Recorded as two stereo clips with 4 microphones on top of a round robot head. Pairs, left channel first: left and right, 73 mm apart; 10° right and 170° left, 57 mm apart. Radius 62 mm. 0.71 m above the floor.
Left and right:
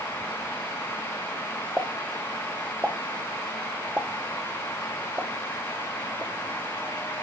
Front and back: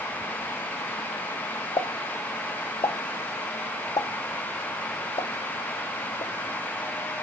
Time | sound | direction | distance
1.8 | a pop | 10° right | 0.8 m